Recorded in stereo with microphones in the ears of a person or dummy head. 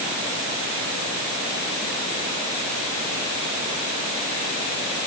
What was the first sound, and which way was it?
Only background noise.